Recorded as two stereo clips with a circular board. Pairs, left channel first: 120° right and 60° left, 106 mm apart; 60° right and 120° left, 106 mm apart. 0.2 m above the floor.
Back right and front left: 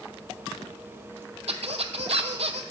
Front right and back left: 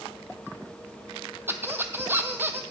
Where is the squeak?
50° left, 0.5 m.